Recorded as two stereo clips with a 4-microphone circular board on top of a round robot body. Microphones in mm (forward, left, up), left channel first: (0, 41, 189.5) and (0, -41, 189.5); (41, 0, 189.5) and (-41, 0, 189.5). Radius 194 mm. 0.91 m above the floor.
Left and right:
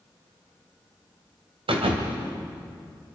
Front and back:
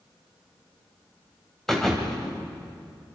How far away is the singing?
I don't hear singing.